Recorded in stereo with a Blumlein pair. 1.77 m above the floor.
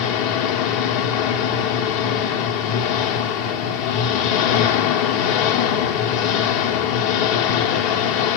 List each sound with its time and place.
0.0 s an engine running: 45° left, 1.4 m